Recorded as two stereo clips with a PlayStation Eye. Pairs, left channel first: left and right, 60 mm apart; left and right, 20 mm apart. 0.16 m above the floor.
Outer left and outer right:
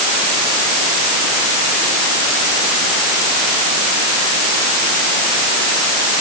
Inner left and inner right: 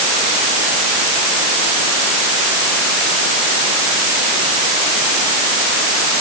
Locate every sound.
Only background noise.